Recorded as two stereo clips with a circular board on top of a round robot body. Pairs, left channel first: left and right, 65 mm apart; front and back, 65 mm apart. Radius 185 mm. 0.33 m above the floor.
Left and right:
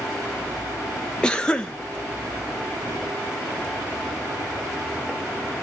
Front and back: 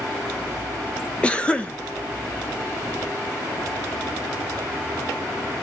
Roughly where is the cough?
Ahead left.